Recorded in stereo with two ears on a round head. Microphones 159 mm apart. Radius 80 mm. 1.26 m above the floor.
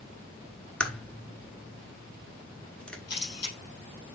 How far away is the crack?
About 1.2 m.